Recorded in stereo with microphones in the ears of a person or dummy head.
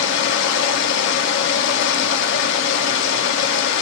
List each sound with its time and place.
0.0 s running water: 60° left (ahead or behind), 0.8 m